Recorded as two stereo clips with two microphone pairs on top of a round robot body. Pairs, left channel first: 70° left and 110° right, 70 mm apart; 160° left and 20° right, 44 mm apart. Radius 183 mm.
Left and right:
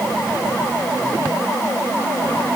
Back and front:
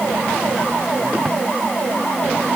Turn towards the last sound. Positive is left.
No sound to turn to.